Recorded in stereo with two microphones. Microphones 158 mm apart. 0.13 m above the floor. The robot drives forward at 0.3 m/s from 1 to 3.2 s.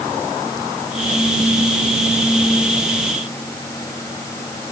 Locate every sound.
Only background noise.